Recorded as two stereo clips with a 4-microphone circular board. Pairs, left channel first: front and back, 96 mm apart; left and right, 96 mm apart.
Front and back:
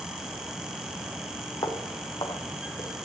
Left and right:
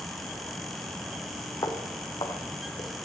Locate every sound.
1.6 s footsteps: 45° left, 3 m; by 2.9 s 50° left, 3.5 m